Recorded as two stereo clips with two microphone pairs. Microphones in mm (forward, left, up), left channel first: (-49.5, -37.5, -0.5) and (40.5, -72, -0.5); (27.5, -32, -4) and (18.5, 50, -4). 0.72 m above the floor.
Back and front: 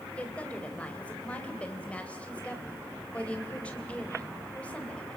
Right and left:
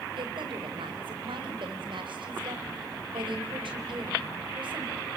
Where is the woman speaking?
80° left, 3.5 m.